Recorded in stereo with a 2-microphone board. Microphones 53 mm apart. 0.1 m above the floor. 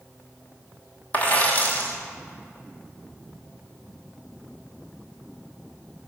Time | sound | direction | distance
1.1 | a dropped coin | 30° left (ahead or behind) | 1.1 m